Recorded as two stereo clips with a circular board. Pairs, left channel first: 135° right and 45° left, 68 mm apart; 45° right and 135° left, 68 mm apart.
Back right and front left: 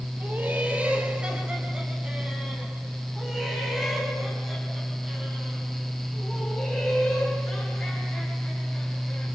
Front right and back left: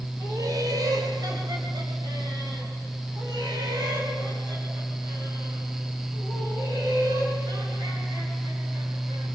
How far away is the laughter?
About 4 m.